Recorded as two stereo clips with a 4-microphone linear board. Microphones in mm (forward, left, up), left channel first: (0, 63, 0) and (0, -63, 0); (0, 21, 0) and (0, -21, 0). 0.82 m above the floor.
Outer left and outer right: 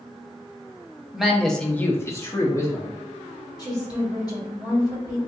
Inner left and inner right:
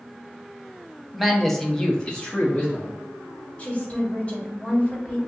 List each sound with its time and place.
1.1 s a man speaking: 5° right (ahead or behind), 0.7 m; by 2.9 s 25° left (ahead or behind), 0.9 m
3.6 s a woman speaking: 35° left (ahead or behind), 1.4 m